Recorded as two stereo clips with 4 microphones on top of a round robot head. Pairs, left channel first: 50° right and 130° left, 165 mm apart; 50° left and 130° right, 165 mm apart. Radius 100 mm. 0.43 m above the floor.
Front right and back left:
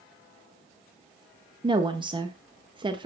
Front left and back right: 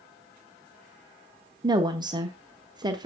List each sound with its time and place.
1.6 s a woman speaking: 175° left, 1.2 m